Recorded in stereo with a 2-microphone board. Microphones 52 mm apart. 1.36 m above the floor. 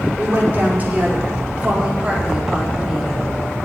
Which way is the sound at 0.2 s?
35° right (ahead or behind).